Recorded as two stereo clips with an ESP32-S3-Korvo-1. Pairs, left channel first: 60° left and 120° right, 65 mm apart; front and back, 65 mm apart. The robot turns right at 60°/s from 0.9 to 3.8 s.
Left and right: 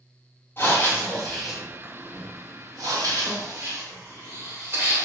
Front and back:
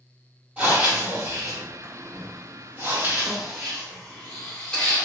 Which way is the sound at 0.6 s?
110° left.